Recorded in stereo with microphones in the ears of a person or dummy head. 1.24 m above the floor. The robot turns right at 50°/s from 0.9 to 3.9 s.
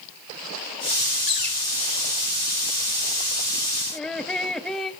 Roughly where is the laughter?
Centre.